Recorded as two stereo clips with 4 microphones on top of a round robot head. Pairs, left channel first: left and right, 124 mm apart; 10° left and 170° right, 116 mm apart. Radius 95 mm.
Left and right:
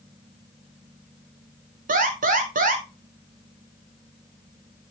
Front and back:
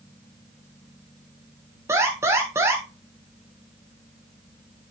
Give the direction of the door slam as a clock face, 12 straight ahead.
I don't hear a door slam.